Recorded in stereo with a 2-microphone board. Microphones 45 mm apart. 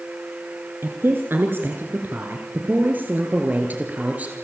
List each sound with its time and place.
0.8 s a woman speaking: 60° right (ahead or behind), 2.5 m; by 4.3 s 35° right (ahead or behind), 3.5 m